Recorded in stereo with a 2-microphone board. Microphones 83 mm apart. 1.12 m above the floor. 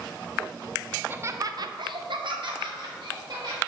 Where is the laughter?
15° right (ahead or behind), 0.5 m; by 3.6 s 60° right (ahead or behind), 1.3 m.